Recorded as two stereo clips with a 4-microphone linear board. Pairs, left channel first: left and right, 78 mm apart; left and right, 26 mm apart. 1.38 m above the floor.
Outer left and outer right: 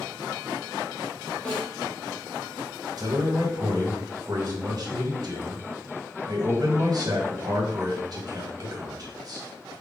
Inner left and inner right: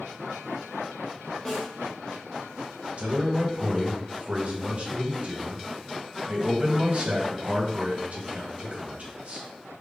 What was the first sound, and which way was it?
A snare drum, 10° left (ahead or behind).